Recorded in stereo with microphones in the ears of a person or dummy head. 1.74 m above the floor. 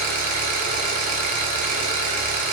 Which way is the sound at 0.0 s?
40° right (ahead or behind).